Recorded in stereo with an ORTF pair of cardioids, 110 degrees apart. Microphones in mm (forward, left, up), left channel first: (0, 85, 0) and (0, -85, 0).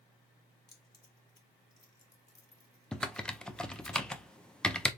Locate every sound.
0.7 s keys jangling: 20° left, 2 m
2.9 s typing on a keyboard: 5° left, 0.6 m